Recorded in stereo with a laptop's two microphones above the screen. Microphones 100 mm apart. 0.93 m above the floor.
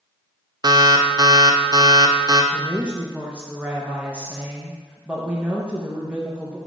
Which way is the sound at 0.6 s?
40° right (ahead or behind).